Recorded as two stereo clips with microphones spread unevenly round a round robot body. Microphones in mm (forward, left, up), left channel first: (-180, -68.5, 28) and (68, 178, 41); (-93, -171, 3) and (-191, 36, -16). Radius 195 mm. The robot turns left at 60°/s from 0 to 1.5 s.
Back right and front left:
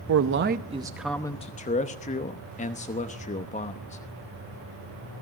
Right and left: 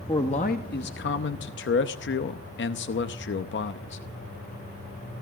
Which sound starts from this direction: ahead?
A man speaking, at 0.1 s.